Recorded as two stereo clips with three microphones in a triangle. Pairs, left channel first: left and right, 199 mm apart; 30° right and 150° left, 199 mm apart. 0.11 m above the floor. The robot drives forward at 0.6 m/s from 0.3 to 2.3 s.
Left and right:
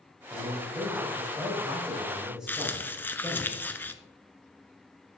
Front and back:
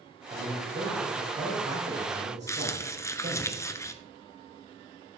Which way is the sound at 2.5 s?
20° left.